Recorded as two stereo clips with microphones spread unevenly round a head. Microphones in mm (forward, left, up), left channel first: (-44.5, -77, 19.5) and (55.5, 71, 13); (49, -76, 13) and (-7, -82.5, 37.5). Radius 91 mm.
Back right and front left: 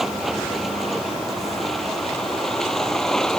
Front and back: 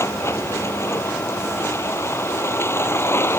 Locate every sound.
0.0 s a vehicle: 35° right